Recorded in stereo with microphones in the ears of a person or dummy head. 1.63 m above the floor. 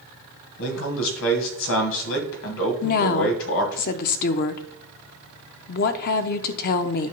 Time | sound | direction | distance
0.6 | a man speaking | 80° left | 1.6 m
2.8 | a woman speaking | 55° left (ahead or behind) | 0.6 m